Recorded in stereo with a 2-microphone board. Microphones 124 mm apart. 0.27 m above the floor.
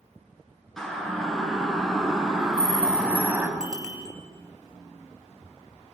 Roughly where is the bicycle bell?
Centre.